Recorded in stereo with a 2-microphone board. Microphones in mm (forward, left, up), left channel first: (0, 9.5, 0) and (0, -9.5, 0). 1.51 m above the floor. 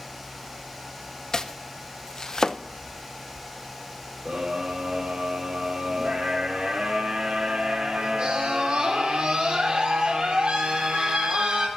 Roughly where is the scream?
Right.